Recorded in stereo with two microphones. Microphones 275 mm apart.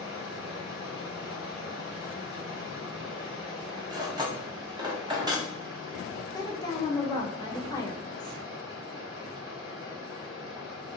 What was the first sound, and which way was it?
Running water, centre (ahead or behind).